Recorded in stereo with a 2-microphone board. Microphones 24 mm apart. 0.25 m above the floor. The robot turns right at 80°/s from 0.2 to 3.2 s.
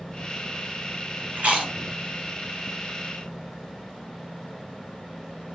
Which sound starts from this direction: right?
Chewing, at 1.4 s.